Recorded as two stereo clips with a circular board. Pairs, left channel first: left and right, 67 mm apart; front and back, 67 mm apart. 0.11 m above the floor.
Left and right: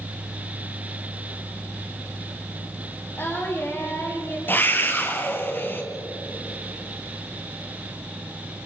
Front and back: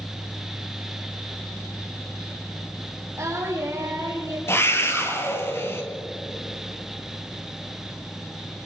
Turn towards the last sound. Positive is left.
turn(degrees=40)